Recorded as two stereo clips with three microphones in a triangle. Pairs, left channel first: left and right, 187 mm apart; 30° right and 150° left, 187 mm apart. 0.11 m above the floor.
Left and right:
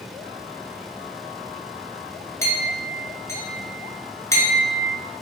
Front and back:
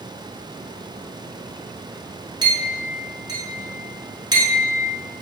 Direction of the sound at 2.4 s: 140° left.